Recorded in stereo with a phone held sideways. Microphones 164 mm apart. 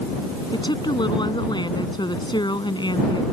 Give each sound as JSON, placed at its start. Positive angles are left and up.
{"t": 0.5, "sound": "a woman speaking", "side_deg": 25}